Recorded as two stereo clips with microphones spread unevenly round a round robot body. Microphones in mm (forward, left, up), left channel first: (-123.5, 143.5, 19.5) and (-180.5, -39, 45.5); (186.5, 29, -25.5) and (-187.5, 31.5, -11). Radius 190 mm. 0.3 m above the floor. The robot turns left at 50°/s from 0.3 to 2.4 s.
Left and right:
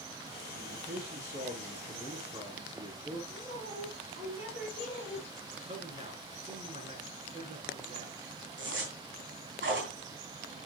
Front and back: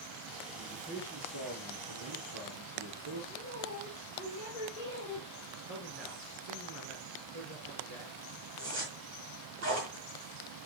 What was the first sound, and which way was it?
A man speaking, 85° right.